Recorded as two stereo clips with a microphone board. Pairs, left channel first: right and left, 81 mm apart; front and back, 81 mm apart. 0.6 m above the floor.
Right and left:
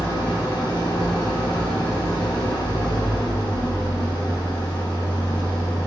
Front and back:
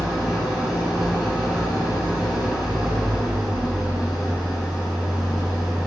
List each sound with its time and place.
0.0 s an engine running: 95° right, 2.5 m